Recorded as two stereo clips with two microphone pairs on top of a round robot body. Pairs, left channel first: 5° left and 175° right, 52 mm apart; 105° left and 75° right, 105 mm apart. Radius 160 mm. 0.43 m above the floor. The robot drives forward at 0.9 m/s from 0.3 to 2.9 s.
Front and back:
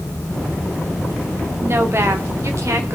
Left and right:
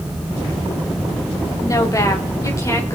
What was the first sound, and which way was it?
A woman speaking, 160° left.